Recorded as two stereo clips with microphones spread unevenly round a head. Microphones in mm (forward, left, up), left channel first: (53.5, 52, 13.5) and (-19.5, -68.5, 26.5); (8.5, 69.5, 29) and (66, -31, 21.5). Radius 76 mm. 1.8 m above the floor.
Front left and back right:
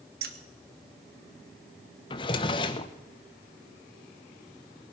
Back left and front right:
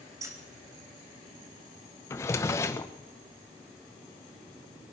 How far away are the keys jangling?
About 1.6 m.